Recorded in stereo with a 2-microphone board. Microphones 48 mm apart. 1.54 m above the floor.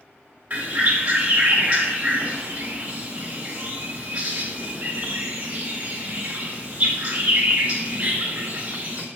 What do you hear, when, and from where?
0.5 s a bird: 35° right (ahead or behind), 1.4 m